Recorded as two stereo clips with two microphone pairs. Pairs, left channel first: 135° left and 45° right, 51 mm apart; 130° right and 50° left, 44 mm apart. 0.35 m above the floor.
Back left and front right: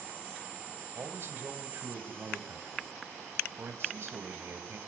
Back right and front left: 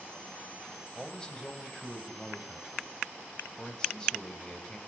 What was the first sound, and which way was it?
A man speaking, 60° right.